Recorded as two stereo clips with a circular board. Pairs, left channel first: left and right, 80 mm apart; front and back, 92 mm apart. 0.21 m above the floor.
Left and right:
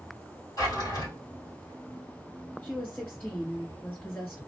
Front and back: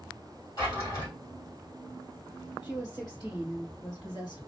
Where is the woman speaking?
30° left, 3 m.